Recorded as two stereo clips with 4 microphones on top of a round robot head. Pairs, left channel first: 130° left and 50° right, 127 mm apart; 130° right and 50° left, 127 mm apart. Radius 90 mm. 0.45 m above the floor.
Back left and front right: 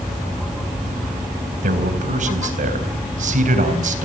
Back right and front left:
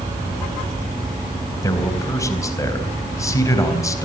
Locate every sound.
1.6 s a man speaking: 65° right, 3.5 m